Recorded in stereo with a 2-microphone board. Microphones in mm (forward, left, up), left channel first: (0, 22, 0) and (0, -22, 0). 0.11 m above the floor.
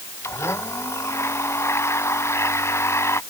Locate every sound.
0.2 s a blender: 85° left